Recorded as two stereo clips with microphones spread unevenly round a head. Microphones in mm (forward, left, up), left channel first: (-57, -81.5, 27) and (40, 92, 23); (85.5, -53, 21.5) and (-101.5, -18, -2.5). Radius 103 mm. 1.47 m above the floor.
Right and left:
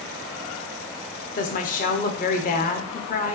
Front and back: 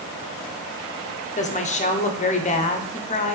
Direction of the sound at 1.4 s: 65° right.